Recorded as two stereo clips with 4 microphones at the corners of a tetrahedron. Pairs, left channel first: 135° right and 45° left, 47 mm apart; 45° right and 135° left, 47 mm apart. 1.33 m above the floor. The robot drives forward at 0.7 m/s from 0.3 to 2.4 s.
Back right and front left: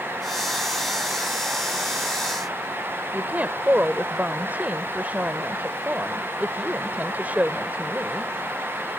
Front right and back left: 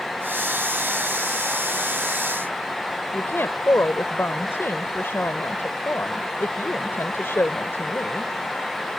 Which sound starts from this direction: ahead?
A woman speaking, at 3.1 s.